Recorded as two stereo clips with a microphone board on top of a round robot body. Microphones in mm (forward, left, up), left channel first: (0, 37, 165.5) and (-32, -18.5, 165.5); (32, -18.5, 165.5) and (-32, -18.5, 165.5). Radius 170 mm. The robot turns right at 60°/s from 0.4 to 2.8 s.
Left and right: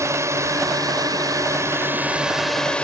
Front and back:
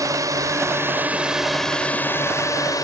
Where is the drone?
155° right; by 2.8 s 15° right.